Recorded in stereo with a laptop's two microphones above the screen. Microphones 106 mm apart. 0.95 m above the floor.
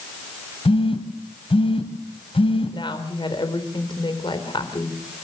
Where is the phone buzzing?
55° left (ahead or behind), 2.5 m.